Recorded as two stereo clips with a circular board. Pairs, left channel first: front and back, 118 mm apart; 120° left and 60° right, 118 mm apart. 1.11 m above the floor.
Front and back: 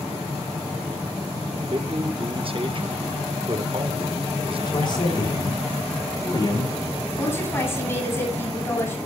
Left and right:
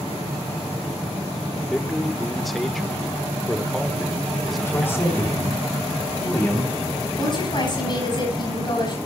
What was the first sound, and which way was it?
A man speaking, 150° right.